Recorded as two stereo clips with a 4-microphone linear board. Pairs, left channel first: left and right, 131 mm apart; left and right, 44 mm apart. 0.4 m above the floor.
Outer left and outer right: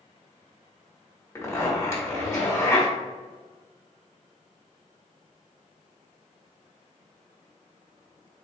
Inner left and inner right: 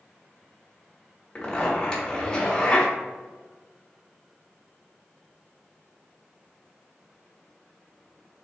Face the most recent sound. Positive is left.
turn(degrees=20)  # may be behind; listen again after turning